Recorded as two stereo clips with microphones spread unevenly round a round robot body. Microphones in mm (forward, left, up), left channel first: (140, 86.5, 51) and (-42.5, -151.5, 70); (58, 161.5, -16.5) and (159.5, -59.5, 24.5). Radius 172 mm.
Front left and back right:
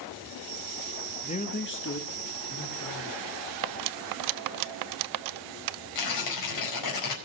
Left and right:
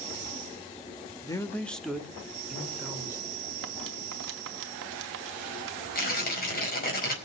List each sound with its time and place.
1.2 s a man speaking: 90° left, 1.1 m; by 3.4 s 20° left, 3.5 m
3.6 s cutlery clinking: 120° right, 0.5 m
6.0 s tearing paper: 65° left, 4.5 m